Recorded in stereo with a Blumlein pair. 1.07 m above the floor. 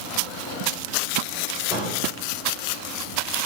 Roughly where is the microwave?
Ahead left.